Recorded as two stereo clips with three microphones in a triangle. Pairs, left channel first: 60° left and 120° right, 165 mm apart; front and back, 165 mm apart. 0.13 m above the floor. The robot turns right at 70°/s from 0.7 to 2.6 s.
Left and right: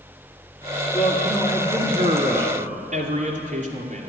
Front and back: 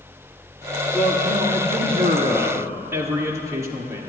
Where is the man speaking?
130° left, 2 m; by 4.1 s 115° right, 2 m.